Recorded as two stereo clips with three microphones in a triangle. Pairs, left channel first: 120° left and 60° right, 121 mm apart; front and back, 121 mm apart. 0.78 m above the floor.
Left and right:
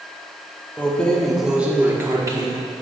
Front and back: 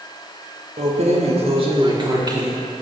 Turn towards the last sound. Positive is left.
turn(degrees=-120)